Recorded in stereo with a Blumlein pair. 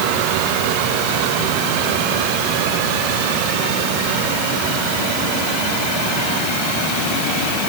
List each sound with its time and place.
Only background noise.